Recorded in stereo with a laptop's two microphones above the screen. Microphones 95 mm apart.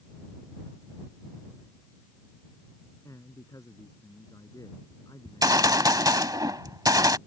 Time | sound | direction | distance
3.0 | a man speaking | 35° left (ahead or behind) | ?
5.2 | a gunshot | 45° right (ahead or behind) | ?